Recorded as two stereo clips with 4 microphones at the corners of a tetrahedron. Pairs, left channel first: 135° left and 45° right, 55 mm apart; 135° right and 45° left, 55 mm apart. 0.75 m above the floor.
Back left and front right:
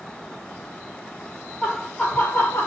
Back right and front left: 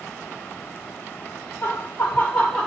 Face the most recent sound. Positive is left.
turn(degrees=150)